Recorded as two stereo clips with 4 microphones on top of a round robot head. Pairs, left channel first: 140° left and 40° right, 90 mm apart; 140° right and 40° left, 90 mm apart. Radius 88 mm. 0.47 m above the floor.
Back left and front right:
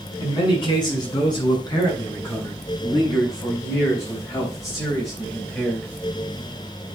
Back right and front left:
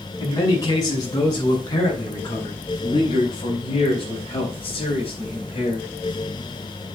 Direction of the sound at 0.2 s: 170° left.